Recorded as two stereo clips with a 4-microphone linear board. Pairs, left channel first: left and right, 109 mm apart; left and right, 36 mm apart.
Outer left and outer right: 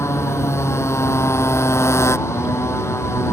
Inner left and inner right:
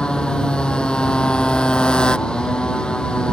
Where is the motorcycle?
25° left (ahead or behind).